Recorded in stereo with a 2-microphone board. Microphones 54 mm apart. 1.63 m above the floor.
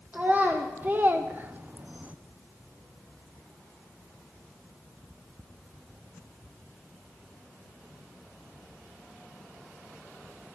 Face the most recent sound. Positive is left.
turn(degrees=-25)  # may be behind; listen again after turning